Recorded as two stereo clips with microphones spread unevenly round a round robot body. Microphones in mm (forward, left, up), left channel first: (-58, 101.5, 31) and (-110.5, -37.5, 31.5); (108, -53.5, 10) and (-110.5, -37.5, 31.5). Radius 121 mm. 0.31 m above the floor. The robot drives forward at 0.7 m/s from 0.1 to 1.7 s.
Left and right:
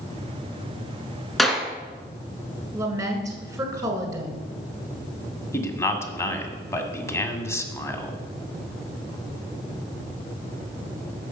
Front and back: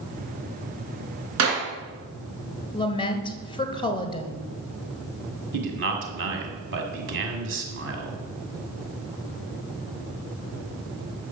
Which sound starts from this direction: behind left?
A man speaking, at 5.5 s.